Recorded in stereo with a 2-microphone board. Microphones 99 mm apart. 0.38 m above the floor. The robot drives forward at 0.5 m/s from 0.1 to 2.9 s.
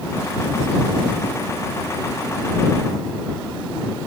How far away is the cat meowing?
No cat meowing in this recording.